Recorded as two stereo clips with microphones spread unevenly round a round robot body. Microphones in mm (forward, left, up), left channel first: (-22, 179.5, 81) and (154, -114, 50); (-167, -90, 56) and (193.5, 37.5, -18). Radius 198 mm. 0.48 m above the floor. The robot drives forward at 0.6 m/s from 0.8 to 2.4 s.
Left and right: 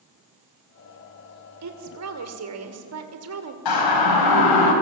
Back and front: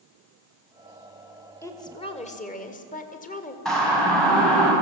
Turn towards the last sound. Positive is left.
turn(degrees=110)